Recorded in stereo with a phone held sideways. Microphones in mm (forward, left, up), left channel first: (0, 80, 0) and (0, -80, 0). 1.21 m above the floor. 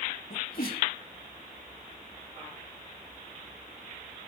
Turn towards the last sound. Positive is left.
turn(degrees=65)  # may be behind; listen again after turning